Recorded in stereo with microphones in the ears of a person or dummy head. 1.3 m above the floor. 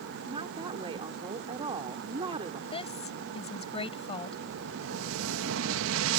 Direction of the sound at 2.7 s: 30° left (ahead or behind).